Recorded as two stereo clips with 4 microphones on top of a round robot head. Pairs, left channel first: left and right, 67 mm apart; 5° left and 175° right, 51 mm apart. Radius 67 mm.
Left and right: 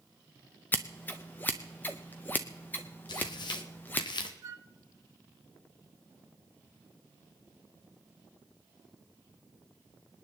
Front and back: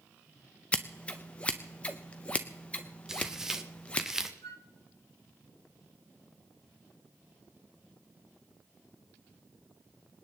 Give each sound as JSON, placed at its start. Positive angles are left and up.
{"t": 0.7, "sound": "scissors", "azimuth_deg": 50, "distance_m": 0.6}
{"t": 3.1, "sound": "tearing paper", "azimuth_deg": 105, "distance_m": 1.3}
{"t": 4.4, "sound": "a flute", "azimuth_deg": -50, "distance_m": 0.8}